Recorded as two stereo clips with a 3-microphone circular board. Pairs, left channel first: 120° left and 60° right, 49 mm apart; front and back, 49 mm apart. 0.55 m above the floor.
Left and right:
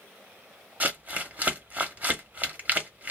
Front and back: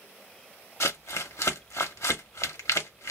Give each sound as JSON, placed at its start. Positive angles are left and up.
{"t": 0.8, "sound": "crumpling", "azimuth_deg": -5, "distance_m": 0.9}